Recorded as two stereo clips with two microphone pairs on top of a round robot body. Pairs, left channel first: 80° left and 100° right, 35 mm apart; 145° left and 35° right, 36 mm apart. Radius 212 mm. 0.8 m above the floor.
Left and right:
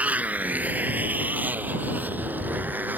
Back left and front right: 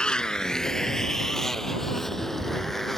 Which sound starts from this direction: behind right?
A motorcycle, at 0.0 s.